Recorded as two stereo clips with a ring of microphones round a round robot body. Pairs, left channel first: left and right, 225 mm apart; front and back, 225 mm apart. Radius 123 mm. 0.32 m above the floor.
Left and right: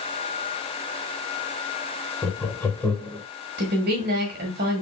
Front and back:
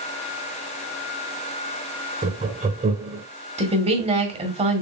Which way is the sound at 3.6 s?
125° right.